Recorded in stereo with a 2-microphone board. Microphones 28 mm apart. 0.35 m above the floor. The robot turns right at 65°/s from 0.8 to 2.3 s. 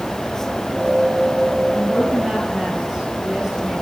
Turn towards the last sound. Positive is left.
turn(degrees=-160)